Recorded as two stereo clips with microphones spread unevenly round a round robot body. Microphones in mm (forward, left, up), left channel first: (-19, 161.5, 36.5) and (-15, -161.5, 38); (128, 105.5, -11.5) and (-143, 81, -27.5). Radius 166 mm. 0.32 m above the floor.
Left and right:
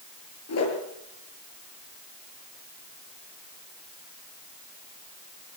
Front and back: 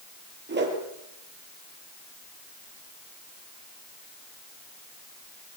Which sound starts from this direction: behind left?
A whoosh, at 0.5 s.